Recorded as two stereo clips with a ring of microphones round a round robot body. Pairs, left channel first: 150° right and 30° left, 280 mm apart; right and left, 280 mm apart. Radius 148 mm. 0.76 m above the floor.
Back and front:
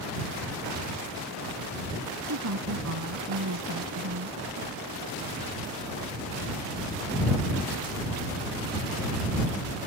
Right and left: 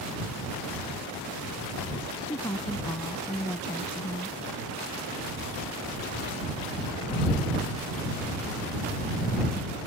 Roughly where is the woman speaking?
Ahead.